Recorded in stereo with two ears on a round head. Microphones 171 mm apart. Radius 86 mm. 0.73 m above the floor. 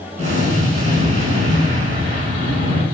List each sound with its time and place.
0.2 s an explosion: 45° right (ahead or behind), 4.5 m